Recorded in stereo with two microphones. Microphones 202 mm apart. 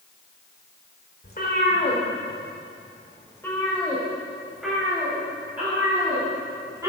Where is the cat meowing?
45° left (ahead or behind), 1.8 m; by 6.9 s 15° right (ahead or behind), 4.5 m.